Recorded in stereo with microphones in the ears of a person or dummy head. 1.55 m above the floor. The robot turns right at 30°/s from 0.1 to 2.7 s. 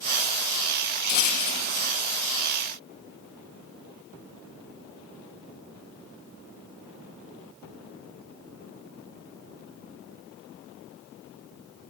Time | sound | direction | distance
1.1 | a rattle | 45° left (ahead or behind) | 0.5 m